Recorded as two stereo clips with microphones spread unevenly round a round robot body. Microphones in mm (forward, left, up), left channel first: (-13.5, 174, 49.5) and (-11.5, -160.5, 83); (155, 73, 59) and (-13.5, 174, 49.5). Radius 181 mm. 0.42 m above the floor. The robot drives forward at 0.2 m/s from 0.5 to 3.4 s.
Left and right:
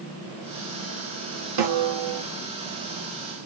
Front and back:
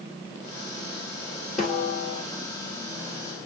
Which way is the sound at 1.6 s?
120° right.